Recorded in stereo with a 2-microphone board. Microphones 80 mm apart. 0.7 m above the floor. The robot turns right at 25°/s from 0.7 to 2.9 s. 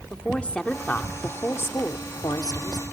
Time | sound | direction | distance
0.1 | a woman speaking | 15° left | 1.5 m